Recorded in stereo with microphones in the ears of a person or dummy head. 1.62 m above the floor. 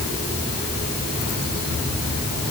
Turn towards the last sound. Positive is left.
No sound to turn to.